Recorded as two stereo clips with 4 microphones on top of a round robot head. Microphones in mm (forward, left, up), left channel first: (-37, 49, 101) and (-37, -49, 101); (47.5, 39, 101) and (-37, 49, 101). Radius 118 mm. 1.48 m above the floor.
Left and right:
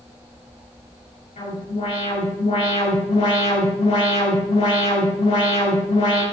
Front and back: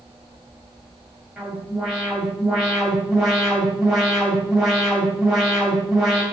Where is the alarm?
85° left, 8 m.